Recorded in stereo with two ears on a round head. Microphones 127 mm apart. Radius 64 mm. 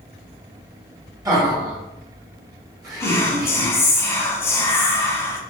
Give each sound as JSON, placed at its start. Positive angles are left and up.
{"t": 1.2, "sound": "laughter", "side_deg": -25, "distance_m": 1.5}
{"t": 3.0, "sound": "whispering", "side_deg": 20, "distance_m": 0.6}